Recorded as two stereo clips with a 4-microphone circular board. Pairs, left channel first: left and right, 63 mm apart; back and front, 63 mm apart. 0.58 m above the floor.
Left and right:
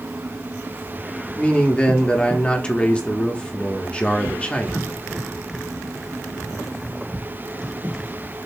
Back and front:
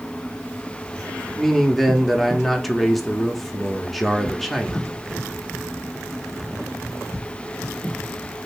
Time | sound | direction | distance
1.4 | a man speaking | 90° left | 0.6 m